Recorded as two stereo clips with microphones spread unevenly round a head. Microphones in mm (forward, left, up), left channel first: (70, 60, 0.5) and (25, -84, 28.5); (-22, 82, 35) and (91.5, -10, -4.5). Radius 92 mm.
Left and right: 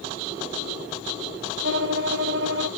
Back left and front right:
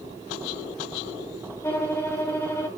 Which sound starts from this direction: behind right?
A violin, at 1.6 s.